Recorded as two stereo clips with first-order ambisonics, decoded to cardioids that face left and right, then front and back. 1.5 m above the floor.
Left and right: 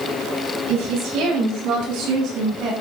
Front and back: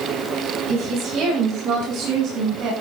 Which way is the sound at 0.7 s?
125° right.